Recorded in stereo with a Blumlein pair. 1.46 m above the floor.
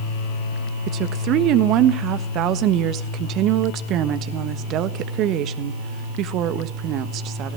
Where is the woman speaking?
35° right, 1.3 m.